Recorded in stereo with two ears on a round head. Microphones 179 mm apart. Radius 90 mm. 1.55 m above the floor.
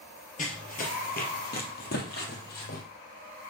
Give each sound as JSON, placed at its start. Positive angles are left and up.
{"t": 0.4, "sound": "running footsteps", "side_deg": 40, "distance_m": 1.9}